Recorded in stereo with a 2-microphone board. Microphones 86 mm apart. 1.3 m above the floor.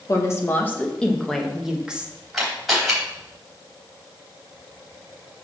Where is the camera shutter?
Centre (ahead or behind), 3.5 m.